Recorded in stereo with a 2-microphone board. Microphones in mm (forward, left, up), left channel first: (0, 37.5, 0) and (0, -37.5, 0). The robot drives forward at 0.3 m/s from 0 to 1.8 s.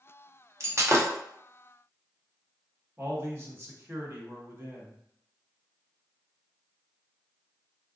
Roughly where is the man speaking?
Right.